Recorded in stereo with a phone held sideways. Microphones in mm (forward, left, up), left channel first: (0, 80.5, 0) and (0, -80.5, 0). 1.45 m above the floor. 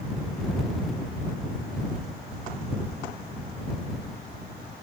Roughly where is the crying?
I don't hear crying.